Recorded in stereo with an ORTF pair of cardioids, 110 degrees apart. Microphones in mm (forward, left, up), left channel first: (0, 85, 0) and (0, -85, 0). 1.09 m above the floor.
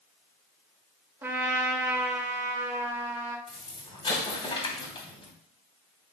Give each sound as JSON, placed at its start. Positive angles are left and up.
{"t": 1.2, "sound": "a trumpet", "azimuth_deg": -15, "distance_m": 1.8}
{"t": 3.5, "sound": "an explosion", "azimuth_deg": 30, "distance_m": 3.0}